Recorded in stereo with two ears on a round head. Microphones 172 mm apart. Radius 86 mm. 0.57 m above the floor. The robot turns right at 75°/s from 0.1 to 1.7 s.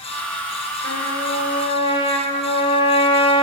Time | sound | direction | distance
0.8 | a trumpet | 90° left | 1.2 m